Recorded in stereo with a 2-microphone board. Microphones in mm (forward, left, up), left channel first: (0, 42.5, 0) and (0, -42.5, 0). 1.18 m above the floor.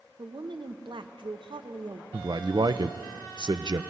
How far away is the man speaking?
About 0.5 m.